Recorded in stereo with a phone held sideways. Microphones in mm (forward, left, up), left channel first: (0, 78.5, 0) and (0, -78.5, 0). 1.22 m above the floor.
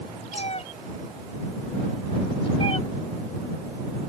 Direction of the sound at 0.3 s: 45° left (ahead or behind).